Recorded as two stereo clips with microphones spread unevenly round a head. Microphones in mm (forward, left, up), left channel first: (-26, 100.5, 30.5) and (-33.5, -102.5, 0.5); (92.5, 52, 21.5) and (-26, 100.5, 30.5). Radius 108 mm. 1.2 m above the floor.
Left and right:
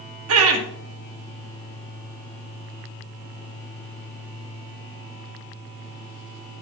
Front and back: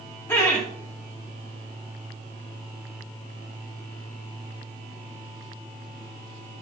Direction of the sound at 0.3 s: 100° right.